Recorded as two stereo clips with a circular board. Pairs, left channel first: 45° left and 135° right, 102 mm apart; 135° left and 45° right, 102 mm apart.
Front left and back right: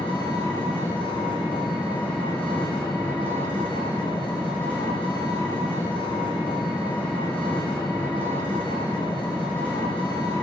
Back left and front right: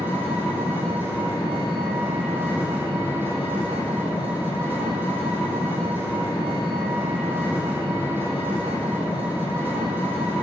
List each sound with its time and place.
0.0 s an engine running: 25° left, 4.5 m